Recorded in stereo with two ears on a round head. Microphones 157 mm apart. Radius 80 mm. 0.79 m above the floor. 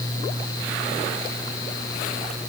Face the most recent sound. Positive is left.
No sound to turn to.